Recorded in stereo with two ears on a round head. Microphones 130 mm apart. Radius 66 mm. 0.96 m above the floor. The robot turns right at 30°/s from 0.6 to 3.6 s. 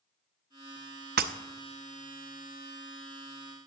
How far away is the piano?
I don't hear a piano.